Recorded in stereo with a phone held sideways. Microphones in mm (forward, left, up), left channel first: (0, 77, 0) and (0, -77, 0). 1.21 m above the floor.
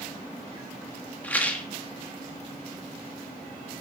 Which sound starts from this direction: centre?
A rattle, at 1.2 s.